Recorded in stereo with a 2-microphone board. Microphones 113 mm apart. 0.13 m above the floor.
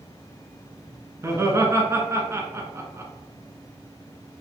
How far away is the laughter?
About 1.5 m.